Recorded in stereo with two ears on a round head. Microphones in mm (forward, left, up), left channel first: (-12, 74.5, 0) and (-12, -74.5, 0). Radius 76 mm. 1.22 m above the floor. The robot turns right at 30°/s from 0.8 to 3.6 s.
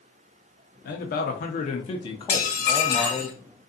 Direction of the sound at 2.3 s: 50° left.